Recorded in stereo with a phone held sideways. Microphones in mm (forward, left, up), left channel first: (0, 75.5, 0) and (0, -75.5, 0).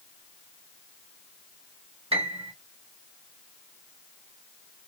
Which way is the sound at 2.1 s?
40° right (ahead or behind).